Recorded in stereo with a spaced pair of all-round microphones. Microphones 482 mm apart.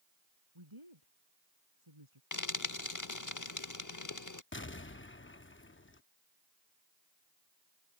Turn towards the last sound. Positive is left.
turn(degrees=25)  # may be behind; listen again after turning